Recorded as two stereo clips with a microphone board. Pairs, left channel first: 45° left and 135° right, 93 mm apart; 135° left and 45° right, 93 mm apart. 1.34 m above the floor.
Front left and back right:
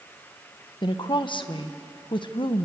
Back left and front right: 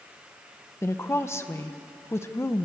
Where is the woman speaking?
75° left, 1.3 m.